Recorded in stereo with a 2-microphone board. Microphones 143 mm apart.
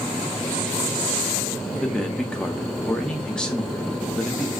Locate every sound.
1.7 s a man speaking: 5° left (ahead or behind), 0.7 m